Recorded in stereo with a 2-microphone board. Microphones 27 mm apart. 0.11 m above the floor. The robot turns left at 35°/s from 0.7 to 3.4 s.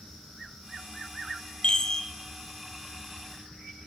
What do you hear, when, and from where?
1.6 s a chime: 35° left (ahead or behind), 0.5 m; by 2.0 s 20° left (ahead or behind), 0.5 m